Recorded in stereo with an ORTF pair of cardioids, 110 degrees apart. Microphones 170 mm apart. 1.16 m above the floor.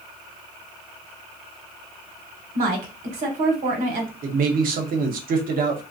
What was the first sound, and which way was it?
A woman speaking, 50° right.